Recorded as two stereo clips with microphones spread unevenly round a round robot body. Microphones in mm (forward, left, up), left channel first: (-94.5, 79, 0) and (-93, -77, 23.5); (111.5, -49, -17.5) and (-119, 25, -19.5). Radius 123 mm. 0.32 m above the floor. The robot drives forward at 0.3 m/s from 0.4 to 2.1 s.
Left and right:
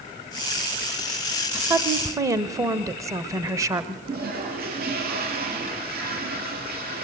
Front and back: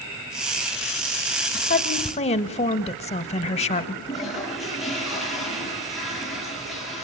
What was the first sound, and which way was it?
A woman speaking, 15° right.